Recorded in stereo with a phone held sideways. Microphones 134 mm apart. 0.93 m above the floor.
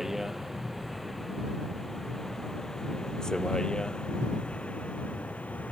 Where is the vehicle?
Centre (ahead or behind); by 5.7 s 10° left (ahead or behind).